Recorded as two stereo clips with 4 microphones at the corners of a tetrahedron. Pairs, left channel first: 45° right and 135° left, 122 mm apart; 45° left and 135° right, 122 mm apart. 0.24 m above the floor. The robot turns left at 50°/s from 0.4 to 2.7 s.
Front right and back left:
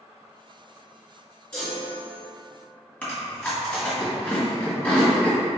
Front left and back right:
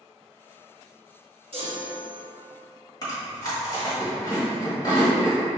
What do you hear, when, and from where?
1.5 s a chime: 125° right, 1.8 m; by 2.2 s 160° right, 1.8 m
3.0 s chewing: 25° left, 1.7 m